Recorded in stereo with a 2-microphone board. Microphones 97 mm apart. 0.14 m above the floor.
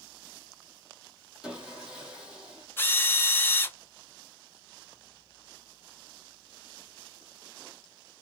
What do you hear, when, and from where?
1.4 s sawing: 10° right (ahead or behind), 1.0 m
2.8 s a drill: 20° left (ahead or behind), 0.6 m